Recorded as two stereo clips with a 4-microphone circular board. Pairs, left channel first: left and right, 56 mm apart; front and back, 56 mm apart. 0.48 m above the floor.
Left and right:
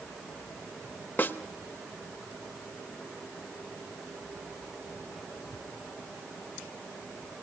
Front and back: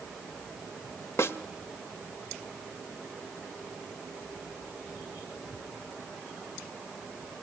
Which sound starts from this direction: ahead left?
A snare drum, at 1.2 s.